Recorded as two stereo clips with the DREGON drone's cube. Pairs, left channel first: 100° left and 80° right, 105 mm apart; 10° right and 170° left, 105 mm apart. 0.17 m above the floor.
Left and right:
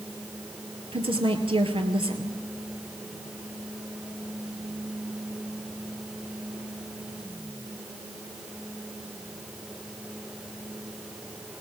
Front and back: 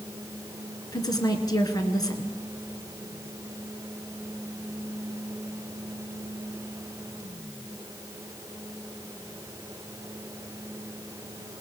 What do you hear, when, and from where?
0.9 s a woman speaking: 60° right, 2 m